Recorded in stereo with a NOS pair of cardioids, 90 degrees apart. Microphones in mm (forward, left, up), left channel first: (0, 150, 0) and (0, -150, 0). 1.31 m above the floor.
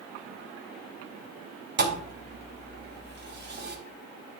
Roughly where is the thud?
Ahead right.